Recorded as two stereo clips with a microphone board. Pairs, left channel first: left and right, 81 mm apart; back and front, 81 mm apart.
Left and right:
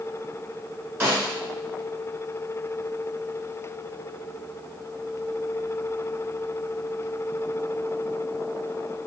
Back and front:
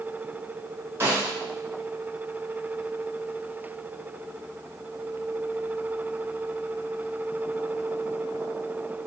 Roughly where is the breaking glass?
No breaking glass in this recording.